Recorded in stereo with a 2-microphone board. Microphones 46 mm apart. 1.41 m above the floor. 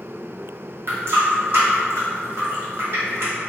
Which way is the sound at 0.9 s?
50° right (ahead or behind).